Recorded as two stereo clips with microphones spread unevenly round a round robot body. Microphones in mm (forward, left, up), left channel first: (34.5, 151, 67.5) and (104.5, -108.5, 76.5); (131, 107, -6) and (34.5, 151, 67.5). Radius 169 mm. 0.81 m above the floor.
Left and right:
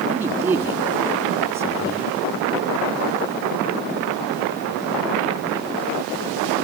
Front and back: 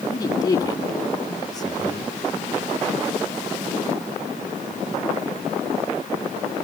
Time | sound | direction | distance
0.1 | a man speaking | 5° left | 2 m